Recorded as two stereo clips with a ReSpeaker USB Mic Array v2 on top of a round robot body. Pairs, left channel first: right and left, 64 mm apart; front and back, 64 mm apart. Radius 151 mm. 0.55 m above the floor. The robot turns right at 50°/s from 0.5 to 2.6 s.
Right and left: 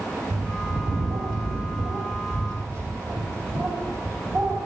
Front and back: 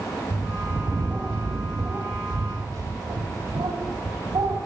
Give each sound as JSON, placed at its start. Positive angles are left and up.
{"t": 0.3, "sound": "a bird", "azimuth_deg": 35, "distance_m": 3.0}